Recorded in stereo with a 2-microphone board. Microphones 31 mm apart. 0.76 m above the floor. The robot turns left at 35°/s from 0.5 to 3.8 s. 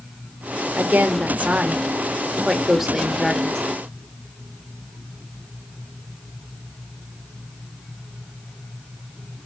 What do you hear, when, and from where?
0.8 s a woman speaking: 100° right, 2 m; by 3.6 s 160° left, 2 m